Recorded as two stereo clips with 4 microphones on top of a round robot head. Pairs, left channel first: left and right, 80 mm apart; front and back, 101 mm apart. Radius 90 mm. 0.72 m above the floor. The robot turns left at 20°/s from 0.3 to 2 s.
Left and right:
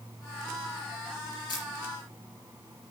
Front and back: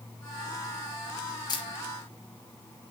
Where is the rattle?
No rattle in this recording.